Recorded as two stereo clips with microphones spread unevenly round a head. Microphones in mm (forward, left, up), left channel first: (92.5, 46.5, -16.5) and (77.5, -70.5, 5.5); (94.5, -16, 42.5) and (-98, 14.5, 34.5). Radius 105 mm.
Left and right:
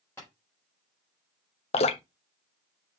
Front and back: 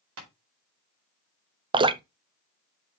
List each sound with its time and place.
0.2 s tapping: 165° left, 4 m
1.7 s dripping: 110° left, 0.5 m